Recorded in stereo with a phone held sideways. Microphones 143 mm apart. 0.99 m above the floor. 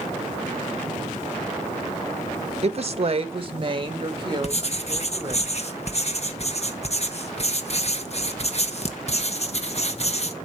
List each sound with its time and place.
2.6 s a woman speaking: 45° right (ahead or behind), 1.0 m; by 5.4 s 30° right (ahead or behind), 3.5 m
4.4 s writing: 50° left (ahead or behind), 1.2 m